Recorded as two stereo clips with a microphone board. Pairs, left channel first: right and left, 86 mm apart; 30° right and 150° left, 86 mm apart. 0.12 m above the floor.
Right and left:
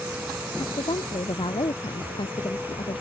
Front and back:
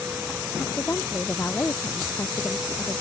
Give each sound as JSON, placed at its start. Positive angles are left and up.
{"t": 0.6, "sound": "a woman speaking", "azimuth_deg": -95}